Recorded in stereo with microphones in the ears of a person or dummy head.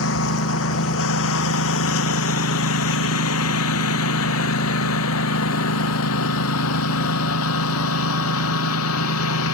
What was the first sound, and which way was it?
A lawn mower, 75° left (ahead or behind).